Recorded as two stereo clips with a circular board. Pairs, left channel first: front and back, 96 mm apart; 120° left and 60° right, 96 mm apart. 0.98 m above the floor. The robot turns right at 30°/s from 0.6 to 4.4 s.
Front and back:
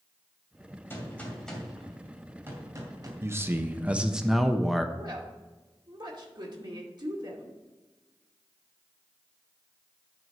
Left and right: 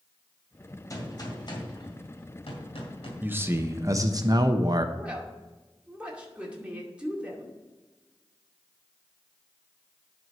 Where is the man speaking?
125° right, 0.8 m; by 4.8 s 90° right, 0.8 m.